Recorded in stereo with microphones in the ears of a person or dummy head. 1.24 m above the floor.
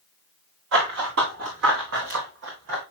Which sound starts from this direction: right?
Running footsteps, at 0.7 s.